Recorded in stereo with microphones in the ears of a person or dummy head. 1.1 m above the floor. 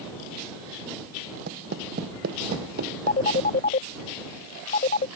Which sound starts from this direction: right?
Footsteps, at 1.5 s.